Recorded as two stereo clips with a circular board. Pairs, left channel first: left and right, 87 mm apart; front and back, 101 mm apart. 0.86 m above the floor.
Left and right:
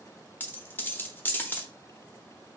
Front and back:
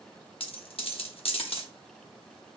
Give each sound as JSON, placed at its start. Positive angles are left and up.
{"t": 0.4, "sound": "a dropped coin", "azimuth_deg": 25, "distance_m": 0.8}